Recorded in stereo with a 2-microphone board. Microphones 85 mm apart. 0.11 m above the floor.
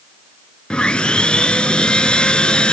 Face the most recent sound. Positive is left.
turn(degrees=10)  # may be behind; listen again after turning